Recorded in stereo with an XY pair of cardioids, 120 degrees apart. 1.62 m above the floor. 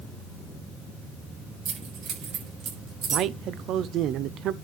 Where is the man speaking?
65° right, 0.8 m.